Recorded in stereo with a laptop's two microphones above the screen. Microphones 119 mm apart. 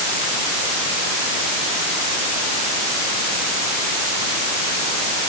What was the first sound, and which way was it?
Only background noise.